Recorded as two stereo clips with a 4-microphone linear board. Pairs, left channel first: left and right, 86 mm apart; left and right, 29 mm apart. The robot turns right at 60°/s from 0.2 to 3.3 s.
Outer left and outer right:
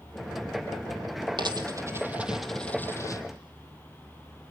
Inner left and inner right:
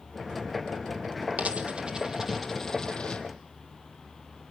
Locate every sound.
1.4 s a dropped coin: 60° right (ahead or behind), 1.8 m; by 3.2 s 45° left (ahead or behind), 1.8 m